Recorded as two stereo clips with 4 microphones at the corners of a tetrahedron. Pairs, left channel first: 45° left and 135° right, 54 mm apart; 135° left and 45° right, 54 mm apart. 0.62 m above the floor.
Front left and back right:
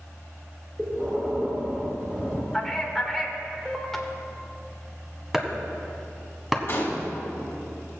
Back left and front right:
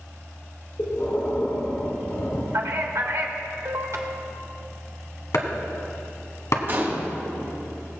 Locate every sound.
0.8 s breathing: 165° left, 1.6 m
2.5 s a man speaking: 40° right, 1.5 m
5.3 s chopping: 140° left, 1.1 m
6.7 s a gunshot: straight ahead, 3 m